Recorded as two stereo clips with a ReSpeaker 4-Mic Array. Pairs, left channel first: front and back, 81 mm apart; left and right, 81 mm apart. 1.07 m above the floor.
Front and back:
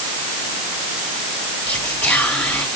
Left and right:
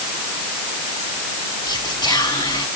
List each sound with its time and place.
1.7 s whispering: 75° left, 1.9 m